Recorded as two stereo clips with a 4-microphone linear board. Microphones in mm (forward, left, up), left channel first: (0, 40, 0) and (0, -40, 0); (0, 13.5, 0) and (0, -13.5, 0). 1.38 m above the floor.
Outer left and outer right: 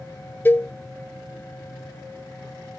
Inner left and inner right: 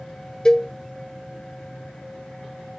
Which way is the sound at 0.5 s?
30° left (ahead or behind).